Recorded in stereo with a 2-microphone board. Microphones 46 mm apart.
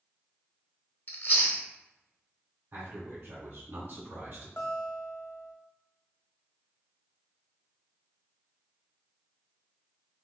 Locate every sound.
1.1 s chewing: 45° left (ahead or behind), 0.8 m
2.7 s a man speaking: 40° right (ahead or behind), 1.7 m
4.6 s a guitar: 60° left (ahead or behind), 0.8 m